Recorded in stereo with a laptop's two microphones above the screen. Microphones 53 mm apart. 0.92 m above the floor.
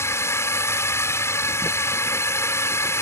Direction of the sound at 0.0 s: 55° left (ahead or behind).